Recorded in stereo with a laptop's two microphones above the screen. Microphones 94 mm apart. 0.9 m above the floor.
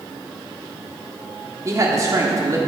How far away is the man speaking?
About 1.7 m.